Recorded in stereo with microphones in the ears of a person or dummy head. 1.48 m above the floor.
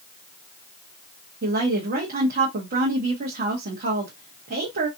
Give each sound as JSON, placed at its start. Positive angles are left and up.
{"t": 1.4, "sound": "a woman speaking", "side_deg": -45, "distance_m": 0.8}